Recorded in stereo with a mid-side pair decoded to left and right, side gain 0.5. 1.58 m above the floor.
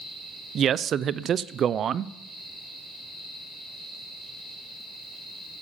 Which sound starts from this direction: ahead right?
A man speaking, at 0.6 s.